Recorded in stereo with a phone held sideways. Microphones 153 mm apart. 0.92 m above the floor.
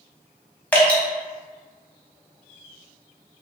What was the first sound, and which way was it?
Dripping, 10° left (ahead or behind).